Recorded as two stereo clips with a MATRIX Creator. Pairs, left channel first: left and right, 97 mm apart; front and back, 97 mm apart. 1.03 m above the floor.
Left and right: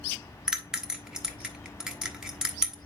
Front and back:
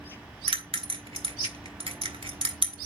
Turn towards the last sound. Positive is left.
turn(degrees=-175)